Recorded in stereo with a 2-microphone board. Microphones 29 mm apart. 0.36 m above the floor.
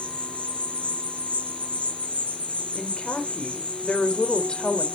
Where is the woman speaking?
35° left (ahead or behind), 1.5 m.